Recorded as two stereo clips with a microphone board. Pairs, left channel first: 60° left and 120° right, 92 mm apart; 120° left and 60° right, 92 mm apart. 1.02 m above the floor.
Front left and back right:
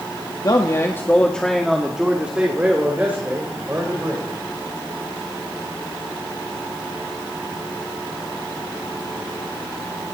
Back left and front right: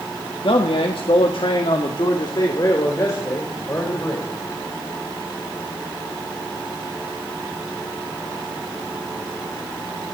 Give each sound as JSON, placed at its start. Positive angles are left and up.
{"t": 0.4, "sound": "a man speaking", "azimuth_deg": 105, "distance_m": 1.5}